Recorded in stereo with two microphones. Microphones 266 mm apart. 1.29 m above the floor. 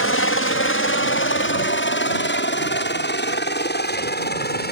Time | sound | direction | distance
0.0 | a helicopter | 50° left (ahead or behind) | ?